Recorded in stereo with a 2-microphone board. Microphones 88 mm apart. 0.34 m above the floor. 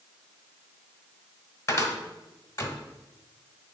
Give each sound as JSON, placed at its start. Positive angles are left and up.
{"t": 1.7, "sound": "a cupboard door", "side_deg": 35, "distance_m": 1.3}